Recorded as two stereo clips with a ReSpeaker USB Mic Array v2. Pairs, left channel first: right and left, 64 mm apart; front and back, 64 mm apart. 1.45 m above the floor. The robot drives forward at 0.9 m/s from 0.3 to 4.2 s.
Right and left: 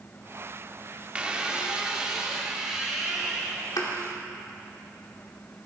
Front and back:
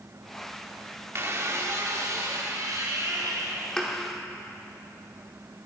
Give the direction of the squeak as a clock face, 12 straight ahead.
7 o'clock.